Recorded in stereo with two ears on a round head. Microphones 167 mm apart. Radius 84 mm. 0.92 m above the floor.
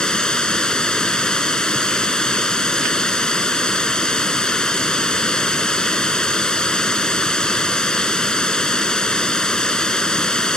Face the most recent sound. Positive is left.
turn(degrees=5)  # may be behind; listen again after turning